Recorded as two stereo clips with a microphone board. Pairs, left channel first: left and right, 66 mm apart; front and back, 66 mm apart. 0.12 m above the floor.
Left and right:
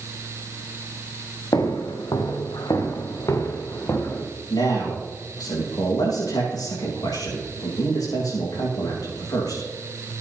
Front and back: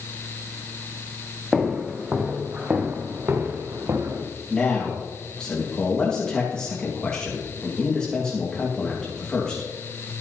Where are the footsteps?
95° left, 3 m; by 4.2 s 145° left, 3 m.